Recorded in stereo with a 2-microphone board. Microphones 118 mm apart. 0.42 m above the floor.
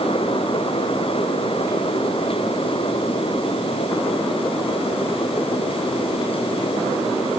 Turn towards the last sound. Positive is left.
No sound to turn to.